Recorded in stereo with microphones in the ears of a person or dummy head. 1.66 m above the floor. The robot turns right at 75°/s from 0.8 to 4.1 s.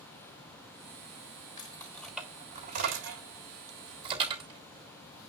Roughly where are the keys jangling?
Left.